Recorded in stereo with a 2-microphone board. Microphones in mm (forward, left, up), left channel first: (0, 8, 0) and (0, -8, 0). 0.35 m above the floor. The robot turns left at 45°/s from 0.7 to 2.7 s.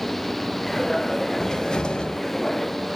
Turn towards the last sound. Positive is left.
turn(degrees=75)